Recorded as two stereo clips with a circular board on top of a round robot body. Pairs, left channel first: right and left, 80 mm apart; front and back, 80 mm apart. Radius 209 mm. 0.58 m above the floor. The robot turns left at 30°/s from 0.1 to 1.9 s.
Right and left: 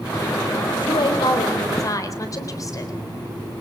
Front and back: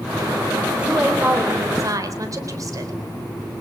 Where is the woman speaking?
100° right, 3.5 m; by 3.0 s 135° right, 3.5 m.